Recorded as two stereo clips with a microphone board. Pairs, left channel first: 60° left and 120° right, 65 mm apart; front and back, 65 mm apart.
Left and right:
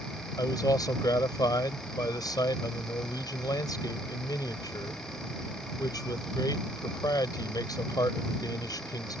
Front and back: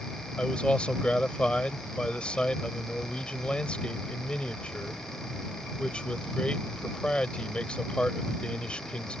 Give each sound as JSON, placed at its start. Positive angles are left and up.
{"t": 0.4, "sound": "a man speaking", "azimuth_deg": 75}